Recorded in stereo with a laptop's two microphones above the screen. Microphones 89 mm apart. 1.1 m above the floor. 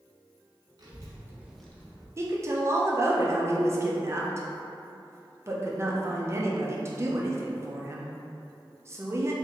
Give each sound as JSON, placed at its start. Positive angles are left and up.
{"t": 0.8, "sound": "a child speaking", "side_deg": -45, "distance_m": 1.0}
{"t": 2.2, "sound": "a woman speaking", "side_deg": -30, "distance_m": 0.6}